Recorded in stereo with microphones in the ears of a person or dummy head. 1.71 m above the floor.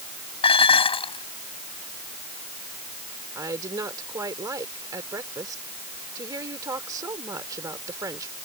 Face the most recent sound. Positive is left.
turn(degrees=-20)  # may be behind; listen again after turning